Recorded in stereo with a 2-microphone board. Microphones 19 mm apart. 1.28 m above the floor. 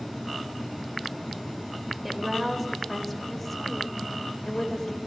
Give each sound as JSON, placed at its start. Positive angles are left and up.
{"t": 2.0, "sound": "a woman speaking", "side_deg": 0, "distance_m": 5.0}